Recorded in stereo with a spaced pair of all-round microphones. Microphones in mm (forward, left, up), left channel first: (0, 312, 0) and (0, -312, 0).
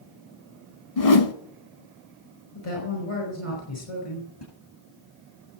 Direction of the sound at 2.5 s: 45° left (ahead or behind).